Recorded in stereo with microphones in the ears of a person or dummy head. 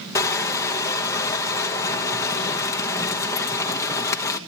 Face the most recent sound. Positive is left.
turn(degrees=15)  # may be behind; listen again after turning